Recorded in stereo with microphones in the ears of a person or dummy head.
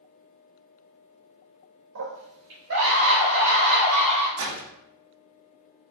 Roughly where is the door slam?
Right.